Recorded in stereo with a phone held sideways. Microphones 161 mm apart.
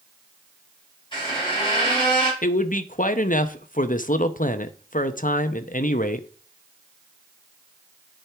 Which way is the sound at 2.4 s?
55° left (ahead or behind).